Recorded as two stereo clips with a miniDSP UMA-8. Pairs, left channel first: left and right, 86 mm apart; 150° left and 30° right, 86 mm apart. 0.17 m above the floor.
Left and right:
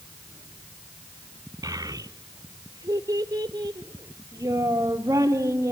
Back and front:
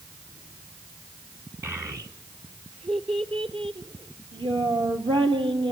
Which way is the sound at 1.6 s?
75° right.